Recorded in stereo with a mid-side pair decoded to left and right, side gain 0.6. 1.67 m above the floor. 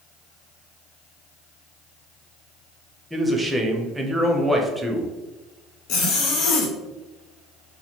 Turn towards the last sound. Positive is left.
turn(degrees=65)